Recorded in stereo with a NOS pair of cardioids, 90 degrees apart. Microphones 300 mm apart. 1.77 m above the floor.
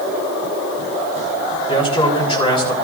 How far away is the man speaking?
About 6 m.